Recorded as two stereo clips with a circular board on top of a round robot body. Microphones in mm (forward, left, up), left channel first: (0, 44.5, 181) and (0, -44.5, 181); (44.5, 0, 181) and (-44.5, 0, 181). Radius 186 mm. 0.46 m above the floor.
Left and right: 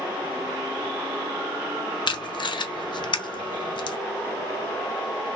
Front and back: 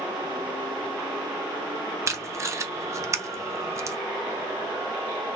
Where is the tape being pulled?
125° left, 0.5 m.